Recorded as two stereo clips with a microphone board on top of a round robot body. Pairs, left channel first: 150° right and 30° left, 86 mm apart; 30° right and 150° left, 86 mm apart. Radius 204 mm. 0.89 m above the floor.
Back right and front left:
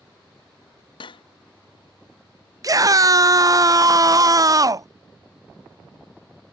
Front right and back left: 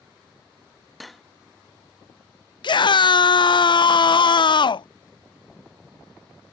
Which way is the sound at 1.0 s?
120° right.